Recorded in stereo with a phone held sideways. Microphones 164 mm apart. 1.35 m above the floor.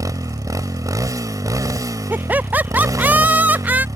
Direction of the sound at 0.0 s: 20° right (ahead or behind).